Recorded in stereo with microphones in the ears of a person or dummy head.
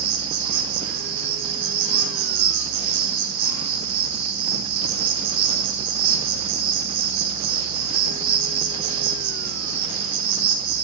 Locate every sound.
0.0 s an insect: 70° right (ahead or behind), 1.0 m